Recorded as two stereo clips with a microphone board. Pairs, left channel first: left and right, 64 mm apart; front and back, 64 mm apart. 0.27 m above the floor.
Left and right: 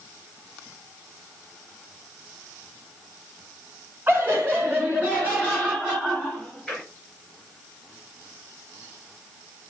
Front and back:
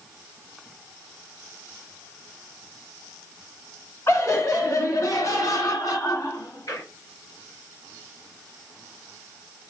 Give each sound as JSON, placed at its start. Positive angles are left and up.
{"t": 4.1, "sound": "laughter", "azimuth_deg": -40, "distance_m": 2.5}